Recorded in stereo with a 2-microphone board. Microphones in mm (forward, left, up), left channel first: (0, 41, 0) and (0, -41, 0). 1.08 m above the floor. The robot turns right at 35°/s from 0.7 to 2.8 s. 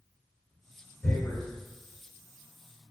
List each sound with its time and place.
1.0 s tearing paper: 15° left (ahead or behind), 1.5 m; by 1.4 s centre (ahead or behind), 1.5 m